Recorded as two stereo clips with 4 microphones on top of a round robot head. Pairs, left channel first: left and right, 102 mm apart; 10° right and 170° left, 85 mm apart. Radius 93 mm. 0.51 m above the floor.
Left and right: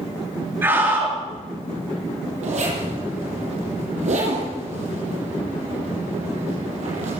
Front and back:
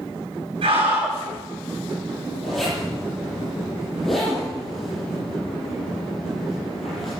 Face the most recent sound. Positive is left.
turn(degrees=-100)